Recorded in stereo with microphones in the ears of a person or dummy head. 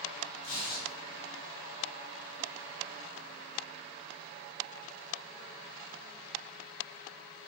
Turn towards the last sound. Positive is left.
turn(degrees=45)  # may be behind; listen again after turning